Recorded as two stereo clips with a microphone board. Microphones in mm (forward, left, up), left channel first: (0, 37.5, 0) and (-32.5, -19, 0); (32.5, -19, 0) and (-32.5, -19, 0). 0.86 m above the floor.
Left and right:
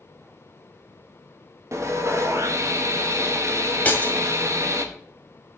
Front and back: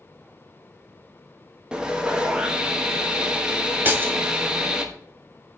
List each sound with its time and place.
1.7 s sawing: 110° right, 1.2 m
3.9 s breaking glass: 125° left, 1.5 m